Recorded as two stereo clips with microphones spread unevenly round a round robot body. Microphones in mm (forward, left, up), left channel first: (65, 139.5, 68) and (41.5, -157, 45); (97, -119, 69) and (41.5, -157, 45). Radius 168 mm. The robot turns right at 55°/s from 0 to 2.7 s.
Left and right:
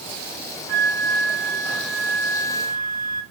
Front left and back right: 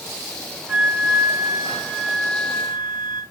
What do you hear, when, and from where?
0.7 s a flute: 80° right, 0.7 m; by 3.2 s 30° left, 0.7 m